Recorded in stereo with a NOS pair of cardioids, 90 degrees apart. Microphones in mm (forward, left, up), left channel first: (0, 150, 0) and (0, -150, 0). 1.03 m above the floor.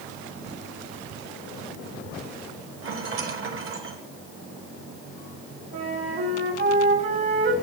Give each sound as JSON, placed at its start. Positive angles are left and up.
{"t": 2.8, "sound": "a rattle", "azimuth_deg": -45, "distance_m": 2.0}
{"t": 5.7, "sound": "a flute", "azimuth_deg": -40, "distance_m": 2.5}